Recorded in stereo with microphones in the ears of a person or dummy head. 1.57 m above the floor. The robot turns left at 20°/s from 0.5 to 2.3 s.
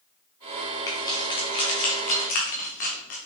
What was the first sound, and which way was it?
Keys jangling, 15° left (ahead or behind).